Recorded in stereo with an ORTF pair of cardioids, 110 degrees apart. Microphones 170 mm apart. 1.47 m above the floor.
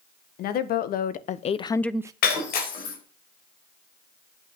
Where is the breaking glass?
65° left, 4 m.